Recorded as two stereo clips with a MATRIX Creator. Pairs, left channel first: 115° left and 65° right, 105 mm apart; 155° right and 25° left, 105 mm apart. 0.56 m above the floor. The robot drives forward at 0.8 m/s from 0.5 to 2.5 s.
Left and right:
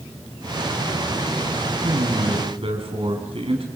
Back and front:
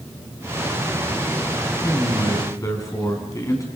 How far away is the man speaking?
About 4.5 m.